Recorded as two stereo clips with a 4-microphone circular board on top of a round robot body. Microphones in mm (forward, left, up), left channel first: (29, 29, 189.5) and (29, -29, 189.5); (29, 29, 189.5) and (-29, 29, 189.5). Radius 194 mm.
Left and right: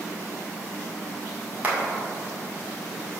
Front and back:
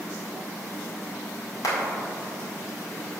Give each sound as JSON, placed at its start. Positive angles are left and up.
{"t": 1.6, "sound": "a clap", "azimuth_deg": -30, "distance_m": 2.0}